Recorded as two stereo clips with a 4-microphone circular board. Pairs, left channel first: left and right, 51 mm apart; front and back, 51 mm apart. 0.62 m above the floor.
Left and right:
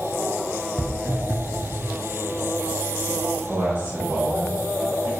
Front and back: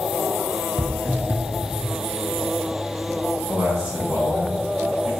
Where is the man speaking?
125° right, 1.9 m.